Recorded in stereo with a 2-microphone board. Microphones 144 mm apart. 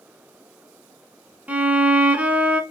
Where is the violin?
10° right (ahead or behind), 0.8 m.